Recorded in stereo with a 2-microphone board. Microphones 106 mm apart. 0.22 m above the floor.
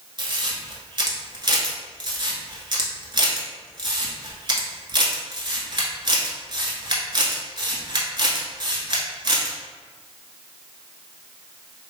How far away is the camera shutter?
About 0.9 m.